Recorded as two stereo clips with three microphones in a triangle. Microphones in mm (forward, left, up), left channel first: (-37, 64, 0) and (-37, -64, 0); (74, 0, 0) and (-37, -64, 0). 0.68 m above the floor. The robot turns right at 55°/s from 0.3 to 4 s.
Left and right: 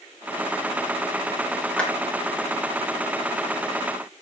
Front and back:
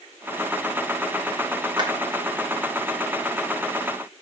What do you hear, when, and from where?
1.8 s a clap: 170° left, 1.2 m; by 1.9 s 175° left, 1.2 m